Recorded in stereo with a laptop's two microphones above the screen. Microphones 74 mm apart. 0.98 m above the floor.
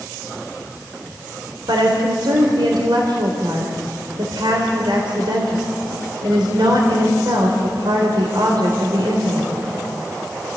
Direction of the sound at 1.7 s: 75° right (ahead or behind).